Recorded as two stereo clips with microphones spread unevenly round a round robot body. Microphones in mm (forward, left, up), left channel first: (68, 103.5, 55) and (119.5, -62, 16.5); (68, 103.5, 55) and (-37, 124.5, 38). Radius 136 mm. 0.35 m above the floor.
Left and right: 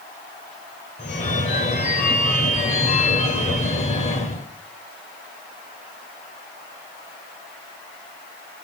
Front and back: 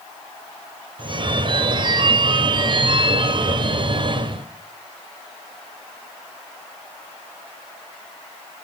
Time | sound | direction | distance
1.0 | a phone ringing | 165° left | 1.3 m